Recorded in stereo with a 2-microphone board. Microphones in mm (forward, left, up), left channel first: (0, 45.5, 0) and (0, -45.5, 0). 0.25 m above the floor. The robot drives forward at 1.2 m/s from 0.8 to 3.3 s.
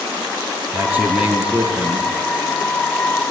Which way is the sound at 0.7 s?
20° right (ahead or behind).